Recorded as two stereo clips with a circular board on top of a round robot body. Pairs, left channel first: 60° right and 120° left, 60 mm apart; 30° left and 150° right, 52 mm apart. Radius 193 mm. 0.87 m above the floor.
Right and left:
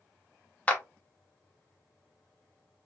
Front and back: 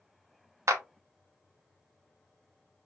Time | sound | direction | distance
0.7 | a clap | 125° right | 0.6 m